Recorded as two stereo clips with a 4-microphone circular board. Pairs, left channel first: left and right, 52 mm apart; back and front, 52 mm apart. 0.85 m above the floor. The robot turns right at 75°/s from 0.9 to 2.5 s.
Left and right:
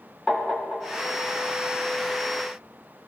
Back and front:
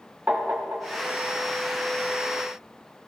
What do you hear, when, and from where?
0.3 s tapping: 30° left, 1.1 m; by 1.1 s 40° left, 1.1 m